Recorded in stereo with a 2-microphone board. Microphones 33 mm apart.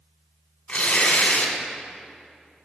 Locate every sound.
0.7 s tearing paper: 35° left (ahead or behind), 2 m